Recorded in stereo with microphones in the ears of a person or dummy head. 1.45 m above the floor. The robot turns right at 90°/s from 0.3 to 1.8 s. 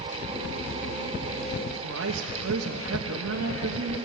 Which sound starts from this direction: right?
A woman speaking, at 1.8 s.